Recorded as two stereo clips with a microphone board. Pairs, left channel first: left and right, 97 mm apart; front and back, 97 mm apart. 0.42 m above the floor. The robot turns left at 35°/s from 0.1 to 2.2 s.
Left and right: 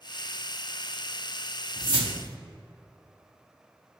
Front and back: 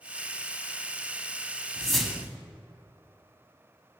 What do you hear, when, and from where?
1.8 s a whoosh: 80° right, 0.7 m; by 2.4 s 95° right, 0.7 m